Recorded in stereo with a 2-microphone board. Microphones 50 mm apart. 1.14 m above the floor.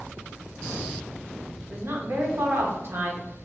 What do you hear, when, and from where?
1.7 s a woman speaking: 55° right (ahead or behind), 0.9 m